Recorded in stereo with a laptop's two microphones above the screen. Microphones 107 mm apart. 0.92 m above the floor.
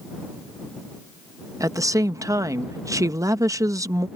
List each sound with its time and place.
1.6 s a woman speaking: 30° right (ahead or behind)